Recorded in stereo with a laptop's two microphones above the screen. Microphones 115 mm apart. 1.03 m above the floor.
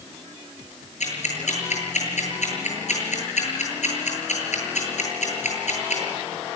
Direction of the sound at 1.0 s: 80° left.